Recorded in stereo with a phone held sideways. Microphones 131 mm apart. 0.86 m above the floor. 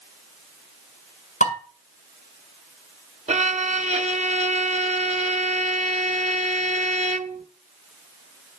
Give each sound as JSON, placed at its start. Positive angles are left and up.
{"t": 1.4, "sound": "dishes clattering", "side_deg": 65, "distance_m": 5.0}
{"t": 3.3, "sound": "a violin", "side_deg": -55, "distance_m": 0.7}